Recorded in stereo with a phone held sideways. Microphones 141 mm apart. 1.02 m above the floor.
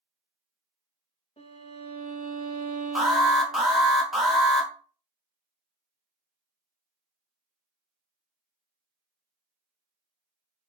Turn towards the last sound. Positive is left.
turn(degrees=0)  # may be behind; listen again after turning